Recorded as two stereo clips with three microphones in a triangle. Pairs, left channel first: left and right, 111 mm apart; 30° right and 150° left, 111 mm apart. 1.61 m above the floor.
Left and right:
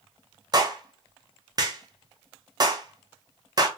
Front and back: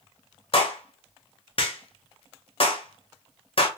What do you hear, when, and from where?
0.5 s a clap: 45° right, 0.9 m